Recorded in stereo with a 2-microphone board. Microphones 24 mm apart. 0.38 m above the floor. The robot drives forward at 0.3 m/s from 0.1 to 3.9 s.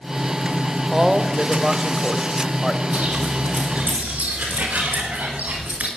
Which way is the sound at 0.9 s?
15° right (ahead or behind).